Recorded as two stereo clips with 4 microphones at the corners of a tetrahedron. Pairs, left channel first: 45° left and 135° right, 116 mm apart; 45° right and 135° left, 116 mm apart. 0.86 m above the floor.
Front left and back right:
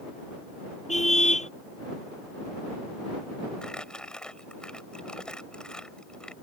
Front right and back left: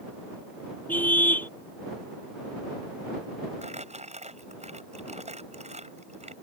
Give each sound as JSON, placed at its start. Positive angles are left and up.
{"t": 0.9, "sound": "a car horn", "azimuth_deg": 30}
{"t": 3.6, "sound": "crumpling", "azimuth_deg": 130}